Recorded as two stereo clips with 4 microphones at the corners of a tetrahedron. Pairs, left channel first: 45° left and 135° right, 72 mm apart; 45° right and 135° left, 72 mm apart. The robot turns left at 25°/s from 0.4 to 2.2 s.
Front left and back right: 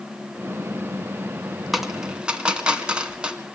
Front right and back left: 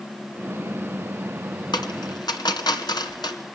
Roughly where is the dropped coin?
Ahead right.